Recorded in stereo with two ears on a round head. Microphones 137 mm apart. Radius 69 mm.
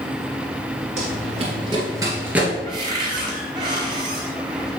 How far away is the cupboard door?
About 2.0 m.